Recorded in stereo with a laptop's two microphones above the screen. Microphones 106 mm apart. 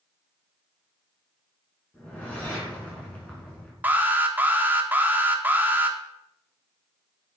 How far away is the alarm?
About 1.8 m.